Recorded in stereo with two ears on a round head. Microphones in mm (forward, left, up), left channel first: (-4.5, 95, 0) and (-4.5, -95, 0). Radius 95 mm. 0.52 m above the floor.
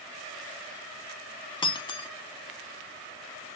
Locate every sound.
1.6 s breaking glass: 20° left (ahead or behind), 0.5 m